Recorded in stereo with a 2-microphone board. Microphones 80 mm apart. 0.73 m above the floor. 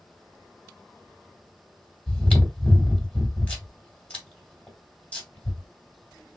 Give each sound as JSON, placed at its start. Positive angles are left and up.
{"t": 2.1, "sound": "chewing", "side_deg": 20, "distance_m": 2.0}